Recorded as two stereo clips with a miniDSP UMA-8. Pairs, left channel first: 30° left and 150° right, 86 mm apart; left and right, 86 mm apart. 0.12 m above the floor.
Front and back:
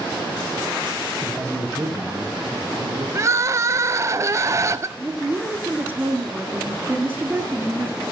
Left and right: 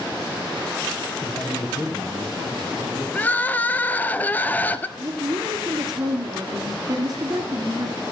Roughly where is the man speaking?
Behind left.